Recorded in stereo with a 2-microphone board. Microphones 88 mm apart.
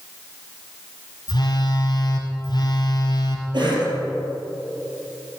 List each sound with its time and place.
1.3 s a phone buzzing: 55° left (ahead or behind), 1.3 m
3.5 s a cough: 60° right (ahead or behind), 3 m